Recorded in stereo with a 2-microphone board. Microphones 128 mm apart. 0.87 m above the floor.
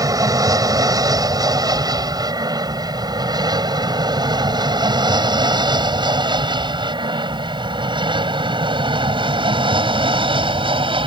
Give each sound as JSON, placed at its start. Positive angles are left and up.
{"t": 0.0, "sound": "an aircraft", "side_deg": -25}